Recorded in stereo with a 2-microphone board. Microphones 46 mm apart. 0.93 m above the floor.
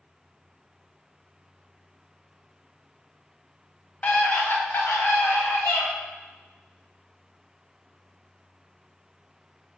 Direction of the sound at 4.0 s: 30° left (ahead or behind).